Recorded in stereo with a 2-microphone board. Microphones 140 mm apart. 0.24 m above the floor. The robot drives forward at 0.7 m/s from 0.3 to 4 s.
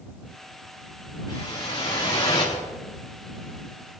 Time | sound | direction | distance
1.3 | a whoosh | 35° left (ahead or behind) | 6.5 m